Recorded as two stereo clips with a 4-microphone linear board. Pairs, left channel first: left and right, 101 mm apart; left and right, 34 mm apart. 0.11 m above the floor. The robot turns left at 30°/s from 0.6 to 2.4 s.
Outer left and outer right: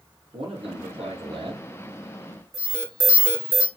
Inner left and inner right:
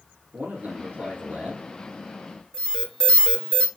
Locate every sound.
0.3 s a man speaking: 90° right, 4.5 m; by 1.6 s 120° right, 4.5 m
2.5 s an alarm: 25° left (ahead or behind), 2 m